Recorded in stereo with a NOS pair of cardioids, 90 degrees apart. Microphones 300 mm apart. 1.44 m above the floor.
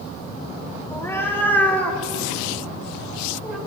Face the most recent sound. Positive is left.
turn(degrees=0)